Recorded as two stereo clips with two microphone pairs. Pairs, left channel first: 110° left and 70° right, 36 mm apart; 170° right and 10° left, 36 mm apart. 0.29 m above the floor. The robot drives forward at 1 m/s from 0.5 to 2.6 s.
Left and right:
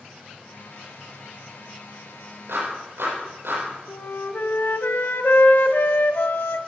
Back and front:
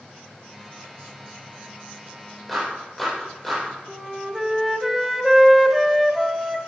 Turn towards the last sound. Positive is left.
turn(degrees=95)